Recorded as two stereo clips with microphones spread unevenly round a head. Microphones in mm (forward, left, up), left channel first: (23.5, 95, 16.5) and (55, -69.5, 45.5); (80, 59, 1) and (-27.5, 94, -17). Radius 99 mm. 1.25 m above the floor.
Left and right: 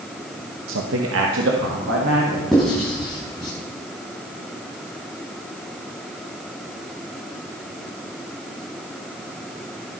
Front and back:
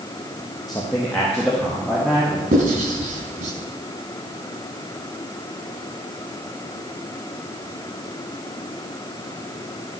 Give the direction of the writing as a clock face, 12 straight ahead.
6 o'clock.